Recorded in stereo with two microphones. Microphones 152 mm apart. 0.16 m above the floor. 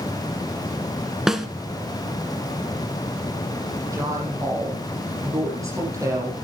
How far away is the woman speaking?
About 6 m.